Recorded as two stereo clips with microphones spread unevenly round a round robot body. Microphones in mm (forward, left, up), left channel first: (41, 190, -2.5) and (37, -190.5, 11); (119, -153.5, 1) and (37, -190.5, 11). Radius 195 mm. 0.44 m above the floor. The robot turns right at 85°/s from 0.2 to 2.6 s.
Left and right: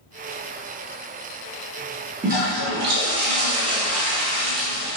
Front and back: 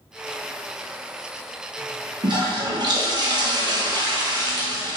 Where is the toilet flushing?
160° right, 0.7 m; by 5.0 s 130° right, 0.7 m.